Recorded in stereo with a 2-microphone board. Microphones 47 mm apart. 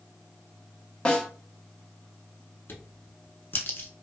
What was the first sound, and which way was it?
A snare drum, 20° left (ahead or behind).